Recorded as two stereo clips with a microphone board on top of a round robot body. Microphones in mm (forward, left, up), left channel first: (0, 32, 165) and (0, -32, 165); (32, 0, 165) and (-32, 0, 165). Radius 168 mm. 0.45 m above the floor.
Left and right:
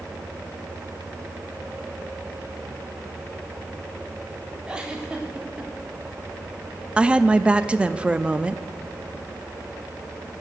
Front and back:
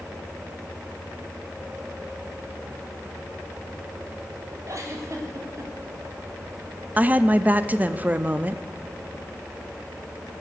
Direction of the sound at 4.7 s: 160° right.